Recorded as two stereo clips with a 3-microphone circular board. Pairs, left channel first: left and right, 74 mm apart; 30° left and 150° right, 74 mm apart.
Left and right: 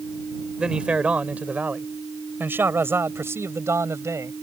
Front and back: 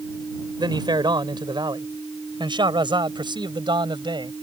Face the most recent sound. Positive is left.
turn(degrees=-140)